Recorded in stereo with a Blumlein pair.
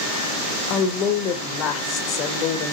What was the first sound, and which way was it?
A woman speaking, 30° left.